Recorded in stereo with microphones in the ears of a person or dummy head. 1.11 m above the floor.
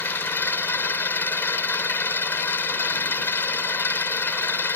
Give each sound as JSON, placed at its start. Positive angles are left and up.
{"t": 0.0, "sound": "an engine running", "side_deg": 10}